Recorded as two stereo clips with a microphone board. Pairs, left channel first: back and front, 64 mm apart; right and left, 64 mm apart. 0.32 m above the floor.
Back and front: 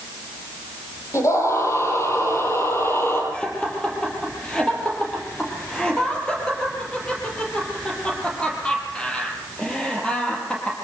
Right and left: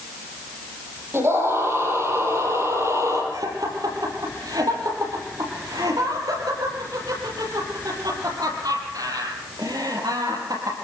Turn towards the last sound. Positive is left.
turn(degrees=105)